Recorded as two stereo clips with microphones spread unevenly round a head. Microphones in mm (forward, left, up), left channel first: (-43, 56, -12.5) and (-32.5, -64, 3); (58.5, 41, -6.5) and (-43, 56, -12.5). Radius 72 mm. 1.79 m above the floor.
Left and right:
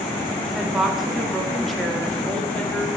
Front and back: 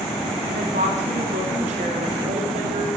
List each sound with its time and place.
0.4 s a woman speaking: 170° right, 4 m; by 2.9 s 175° left, 4.5 m